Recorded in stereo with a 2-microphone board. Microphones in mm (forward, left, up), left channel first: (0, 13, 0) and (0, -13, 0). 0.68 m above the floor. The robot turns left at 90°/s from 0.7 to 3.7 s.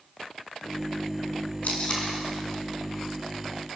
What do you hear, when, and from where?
1.6 s tape being pulled: 65° left (ahead or behind), 5 m; by 2.1 s 25° left (ahead or behind), 5 m